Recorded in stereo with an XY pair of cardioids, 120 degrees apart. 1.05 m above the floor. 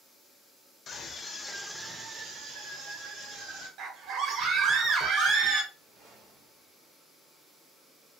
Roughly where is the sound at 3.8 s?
Ahead right.